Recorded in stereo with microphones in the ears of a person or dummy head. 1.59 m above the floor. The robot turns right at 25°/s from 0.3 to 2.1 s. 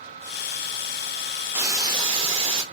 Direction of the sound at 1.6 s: 10° right (ahead or behind).